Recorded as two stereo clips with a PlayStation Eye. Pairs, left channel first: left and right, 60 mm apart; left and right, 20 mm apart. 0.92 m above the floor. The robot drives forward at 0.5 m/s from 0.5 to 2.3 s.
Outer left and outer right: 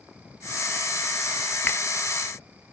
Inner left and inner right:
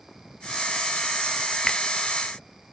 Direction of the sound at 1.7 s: 35° left (ahead or behind).